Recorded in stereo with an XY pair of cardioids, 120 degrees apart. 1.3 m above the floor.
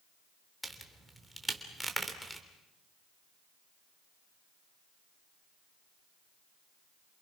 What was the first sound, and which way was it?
A crack, 5° right.